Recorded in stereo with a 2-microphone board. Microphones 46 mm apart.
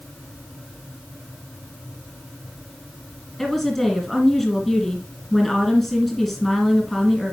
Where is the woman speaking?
5° left (ahead or behind), 1.8 m.